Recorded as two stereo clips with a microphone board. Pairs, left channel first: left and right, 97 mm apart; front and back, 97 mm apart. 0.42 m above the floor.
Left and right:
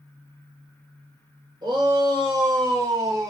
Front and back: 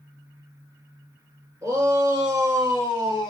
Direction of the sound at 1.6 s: 125° right.